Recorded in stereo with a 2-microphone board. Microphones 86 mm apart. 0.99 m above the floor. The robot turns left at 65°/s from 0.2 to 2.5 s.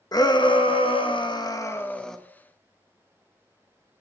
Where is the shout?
130° left, 0.9 m; by 2.2 s 5° left, 0.9 m.